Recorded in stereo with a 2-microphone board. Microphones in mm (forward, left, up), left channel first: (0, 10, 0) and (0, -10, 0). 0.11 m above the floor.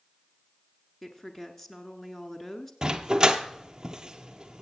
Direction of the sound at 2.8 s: 30° right (ahead or behind).